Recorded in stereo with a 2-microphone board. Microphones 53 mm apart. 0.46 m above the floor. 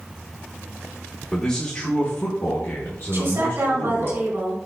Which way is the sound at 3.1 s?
55° right (ahead or behind).